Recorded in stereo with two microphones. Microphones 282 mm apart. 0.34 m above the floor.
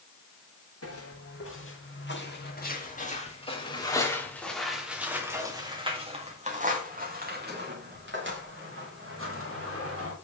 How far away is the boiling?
No boiling in this recording.